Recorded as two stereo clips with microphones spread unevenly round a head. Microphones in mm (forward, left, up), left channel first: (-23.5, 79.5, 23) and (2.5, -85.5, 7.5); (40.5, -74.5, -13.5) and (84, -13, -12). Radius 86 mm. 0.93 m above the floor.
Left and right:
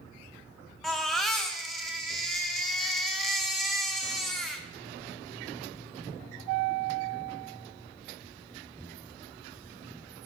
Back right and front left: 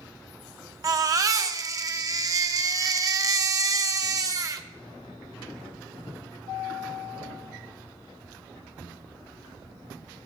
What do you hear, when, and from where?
0.8 s a baby crying: 10° left, 0.6 m